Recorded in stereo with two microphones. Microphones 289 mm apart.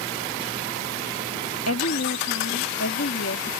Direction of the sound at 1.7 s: 55° left (ahead or behind).